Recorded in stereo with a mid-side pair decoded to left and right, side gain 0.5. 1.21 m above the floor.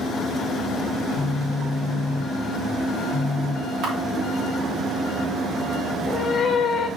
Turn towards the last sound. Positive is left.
turn(degrees=50)